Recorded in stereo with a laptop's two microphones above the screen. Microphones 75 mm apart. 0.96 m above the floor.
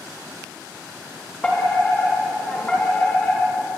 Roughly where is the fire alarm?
Centre.